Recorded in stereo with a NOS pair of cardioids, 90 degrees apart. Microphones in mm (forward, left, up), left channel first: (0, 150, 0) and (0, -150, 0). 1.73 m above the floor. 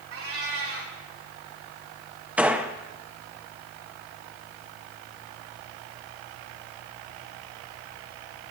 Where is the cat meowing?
45° right, 3 m.